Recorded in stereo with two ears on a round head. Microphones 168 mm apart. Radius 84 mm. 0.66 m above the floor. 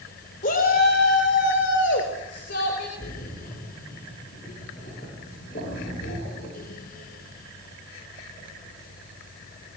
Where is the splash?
45° left (ahead or behind), 7.5 m.